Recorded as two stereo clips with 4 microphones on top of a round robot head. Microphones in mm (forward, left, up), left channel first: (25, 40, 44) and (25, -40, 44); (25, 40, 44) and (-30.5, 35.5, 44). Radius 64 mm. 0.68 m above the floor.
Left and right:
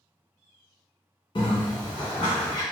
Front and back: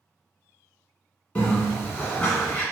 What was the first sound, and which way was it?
A bird, 65° left.